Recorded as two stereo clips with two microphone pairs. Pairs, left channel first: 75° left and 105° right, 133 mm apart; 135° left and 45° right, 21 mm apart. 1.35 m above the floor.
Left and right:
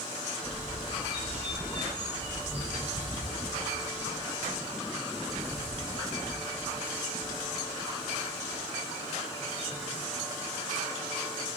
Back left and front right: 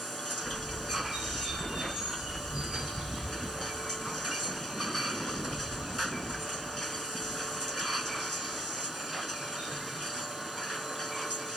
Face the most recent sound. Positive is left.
turn(degrees=-65)